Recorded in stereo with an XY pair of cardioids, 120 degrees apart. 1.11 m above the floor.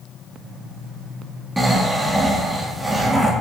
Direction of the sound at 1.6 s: 15° right.